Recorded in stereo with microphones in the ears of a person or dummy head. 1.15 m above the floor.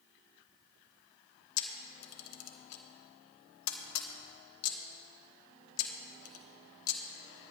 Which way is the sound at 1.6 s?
80° left.